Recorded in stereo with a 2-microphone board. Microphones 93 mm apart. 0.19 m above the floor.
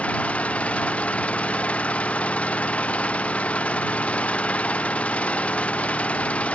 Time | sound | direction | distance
0.0 | an engine running | 15° left (ahead or behind) | ?